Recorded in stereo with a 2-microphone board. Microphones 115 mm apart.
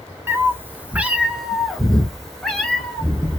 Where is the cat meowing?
25° right (ahead or behind), 0.7 m; by 3.4 s 10° left (ahead or behind), 1.7 m.